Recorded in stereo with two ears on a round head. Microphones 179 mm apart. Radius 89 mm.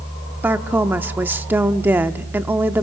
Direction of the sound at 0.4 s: 10° right (ahead or behind).